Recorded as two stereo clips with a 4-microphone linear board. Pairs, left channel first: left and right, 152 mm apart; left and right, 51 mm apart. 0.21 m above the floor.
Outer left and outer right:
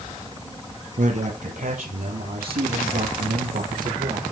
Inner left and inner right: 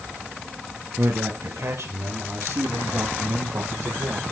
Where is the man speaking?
60° right (ahead or behind), 5 m; by 4.2 s 70° right (ahead or behind), 5.5 m.